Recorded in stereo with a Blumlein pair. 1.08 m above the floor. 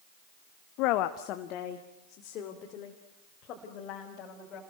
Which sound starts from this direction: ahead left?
A woman speaking, at 0.8 s.